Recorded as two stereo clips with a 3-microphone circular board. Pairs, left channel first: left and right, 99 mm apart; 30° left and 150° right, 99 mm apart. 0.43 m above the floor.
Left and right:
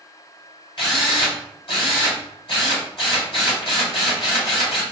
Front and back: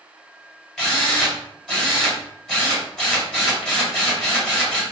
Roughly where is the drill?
Behind left.